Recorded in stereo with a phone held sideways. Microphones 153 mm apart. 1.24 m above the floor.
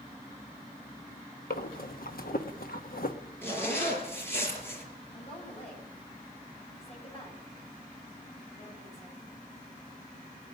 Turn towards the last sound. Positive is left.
turn(degrees=40)  # may be behind; listen again after turning